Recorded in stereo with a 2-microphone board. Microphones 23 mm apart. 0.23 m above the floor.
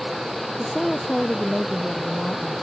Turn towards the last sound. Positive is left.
turn(degrees=30)  # may be behind; listen again after turning